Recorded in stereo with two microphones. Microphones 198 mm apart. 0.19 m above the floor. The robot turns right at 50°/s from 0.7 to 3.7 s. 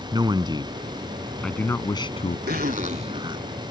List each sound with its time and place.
0.1 s a man speaking: 30° right; by 2.4 s 50° left
2.5 s a zipper: 50° right (ahead or behind); by 3.7 s 10° right (ahead or behind)